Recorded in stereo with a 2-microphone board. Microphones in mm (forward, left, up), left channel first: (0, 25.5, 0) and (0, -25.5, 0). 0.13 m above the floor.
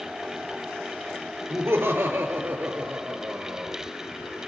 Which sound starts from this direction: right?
Laughter, at 1.5 s.